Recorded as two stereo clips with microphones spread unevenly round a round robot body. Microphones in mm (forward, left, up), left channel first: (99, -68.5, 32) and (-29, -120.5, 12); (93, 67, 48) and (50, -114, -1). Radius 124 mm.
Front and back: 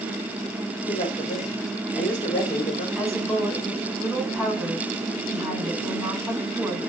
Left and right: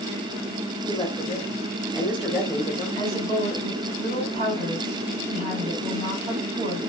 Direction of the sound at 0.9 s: 35° right.